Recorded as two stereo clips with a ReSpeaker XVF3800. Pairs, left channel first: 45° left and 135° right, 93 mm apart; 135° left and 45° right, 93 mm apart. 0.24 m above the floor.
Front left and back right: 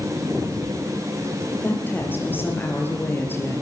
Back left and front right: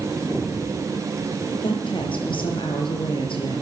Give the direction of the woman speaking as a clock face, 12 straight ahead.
8 o'clock.